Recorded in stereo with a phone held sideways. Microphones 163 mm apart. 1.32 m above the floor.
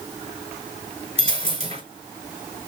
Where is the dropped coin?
40° right (ahead or behind), 4 m.